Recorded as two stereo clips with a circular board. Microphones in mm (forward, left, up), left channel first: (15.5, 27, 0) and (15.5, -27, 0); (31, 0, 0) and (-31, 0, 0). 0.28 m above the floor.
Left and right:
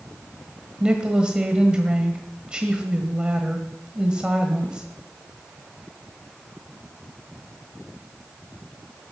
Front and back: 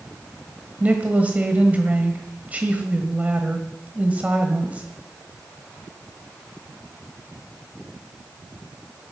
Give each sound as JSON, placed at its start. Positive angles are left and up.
{"t": 0.8, "sound": "a woman speaking", "azimuth_deg": -145, "distance_m": 1.4}